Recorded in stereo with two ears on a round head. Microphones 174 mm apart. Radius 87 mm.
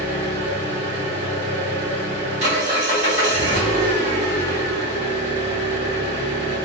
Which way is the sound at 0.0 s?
40° right (ahead or behind).